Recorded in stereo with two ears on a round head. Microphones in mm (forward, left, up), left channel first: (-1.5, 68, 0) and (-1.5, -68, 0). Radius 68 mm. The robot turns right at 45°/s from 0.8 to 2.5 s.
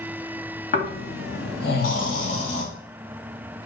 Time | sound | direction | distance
0.7 | snoring | 65° left | 2.5 m